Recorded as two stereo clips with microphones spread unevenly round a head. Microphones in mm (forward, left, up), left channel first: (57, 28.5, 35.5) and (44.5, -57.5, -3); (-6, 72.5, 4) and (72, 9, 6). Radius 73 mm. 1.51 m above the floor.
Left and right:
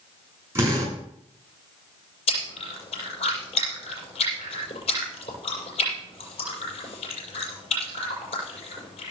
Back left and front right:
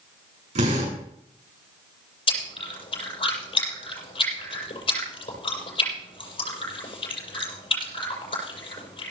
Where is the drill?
35° right, 8 m.